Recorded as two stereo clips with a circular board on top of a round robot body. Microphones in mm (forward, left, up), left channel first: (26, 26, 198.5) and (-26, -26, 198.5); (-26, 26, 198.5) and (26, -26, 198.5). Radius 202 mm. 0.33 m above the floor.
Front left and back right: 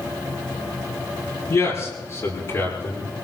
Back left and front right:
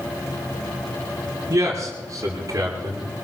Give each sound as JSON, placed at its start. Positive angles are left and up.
{"t": 1.5, "sound": "a man speaking", "azimuth_deg": 0, "distance_m": 7.5}